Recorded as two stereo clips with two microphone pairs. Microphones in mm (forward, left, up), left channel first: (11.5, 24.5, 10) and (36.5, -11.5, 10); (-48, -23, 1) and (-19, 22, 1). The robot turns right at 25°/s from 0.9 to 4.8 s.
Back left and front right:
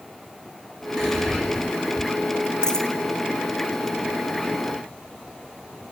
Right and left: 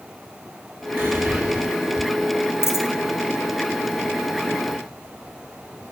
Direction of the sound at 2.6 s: 160° right.